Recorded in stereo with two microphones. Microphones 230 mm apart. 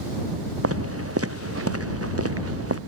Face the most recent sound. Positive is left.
turn(degrees=-85)